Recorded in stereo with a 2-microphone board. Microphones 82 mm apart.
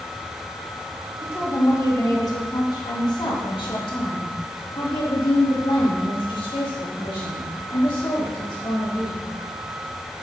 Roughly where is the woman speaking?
Left.